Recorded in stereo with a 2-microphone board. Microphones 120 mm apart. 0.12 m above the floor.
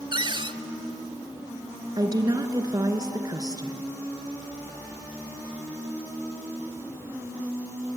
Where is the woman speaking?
35° right (ahead or behind), 1.4 m.